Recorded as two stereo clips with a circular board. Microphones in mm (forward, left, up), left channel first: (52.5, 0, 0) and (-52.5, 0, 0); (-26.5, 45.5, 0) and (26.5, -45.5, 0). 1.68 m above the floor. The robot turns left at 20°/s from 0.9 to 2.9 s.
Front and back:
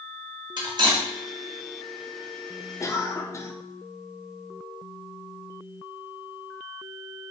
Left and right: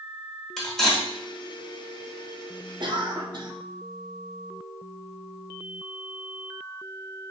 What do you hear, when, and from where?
0.6 s cutlery clinking: 155° right, 1.4 m; by 1.1 s 160° right, 1.4 m
2.8 s a cough: 45° right, 0.8 m